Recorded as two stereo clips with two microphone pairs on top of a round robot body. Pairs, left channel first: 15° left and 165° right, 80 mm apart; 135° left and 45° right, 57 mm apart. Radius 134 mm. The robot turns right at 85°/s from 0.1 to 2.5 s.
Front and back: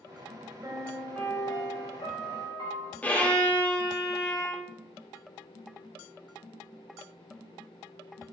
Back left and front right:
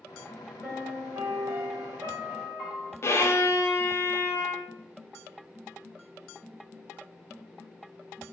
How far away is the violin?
About 1.4 m.